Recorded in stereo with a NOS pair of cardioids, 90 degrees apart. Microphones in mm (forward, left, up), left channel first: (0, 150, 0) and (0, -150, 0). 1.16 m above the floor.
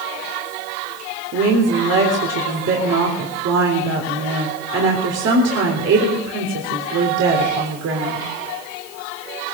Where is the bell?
No bell in this recording.